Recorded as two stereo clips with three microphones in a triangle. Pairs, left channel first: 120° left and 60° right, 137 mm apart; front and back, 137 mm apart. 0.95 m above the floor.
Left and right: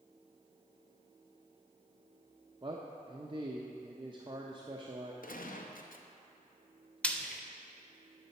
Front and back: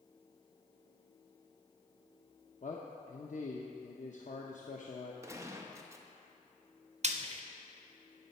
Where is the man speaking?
10° right, 0.6 m.